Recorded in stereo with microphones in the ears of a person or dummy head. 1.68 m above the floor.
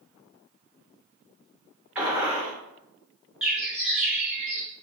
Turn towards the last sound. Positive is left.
turn(degrees=-5)  # may be behind; listen again after turning